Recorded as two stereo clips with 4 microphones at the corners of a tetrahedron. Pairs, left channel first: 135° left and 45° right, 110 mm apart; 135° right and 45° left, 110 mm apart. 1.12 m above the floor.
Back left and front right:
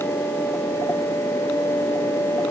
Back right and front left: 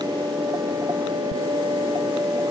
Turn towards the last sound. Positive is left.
No sound to turn to.